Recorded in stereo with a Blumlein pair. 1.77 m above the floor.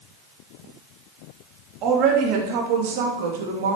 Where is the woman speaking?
35° right, 3 m; by 3.8 s 60° right, 2.5 m.